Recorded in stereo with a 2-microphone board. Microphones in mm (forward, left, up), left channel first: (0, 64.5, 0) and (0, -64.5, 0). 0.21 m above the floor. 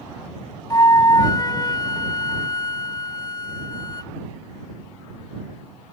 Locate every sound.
0.7 s a flute: 30° left (ahead or behind)